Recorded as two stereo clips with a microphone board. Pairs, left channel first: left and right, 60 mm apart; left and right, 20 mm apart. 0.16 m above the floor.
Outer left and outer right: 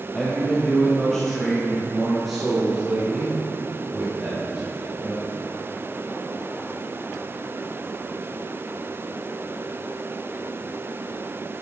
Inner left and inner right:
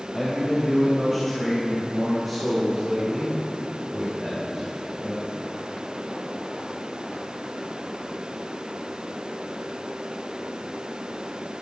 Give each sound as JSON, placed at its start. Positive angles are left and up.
{"t": 0.1, "sound": "a man speaking", "side_deg": 15, "distance_m": 4.5}